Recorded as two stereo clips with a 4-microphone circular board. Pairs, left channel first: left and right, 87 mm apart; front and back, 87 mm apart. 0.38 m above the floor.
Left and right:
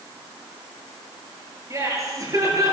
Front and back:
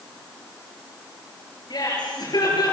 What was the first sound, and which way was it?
Laughter, 40° right.